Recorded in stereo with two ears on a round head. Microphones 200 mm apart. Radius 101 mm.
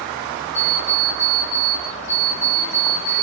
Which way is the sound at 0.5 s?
80° left.